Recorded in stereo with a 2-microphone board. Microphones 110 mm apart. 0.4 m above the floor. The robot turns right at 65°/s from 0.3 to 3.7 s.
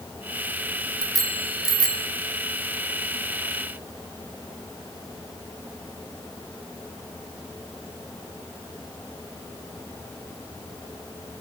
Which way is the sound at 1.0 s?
50° right (ahead or behind).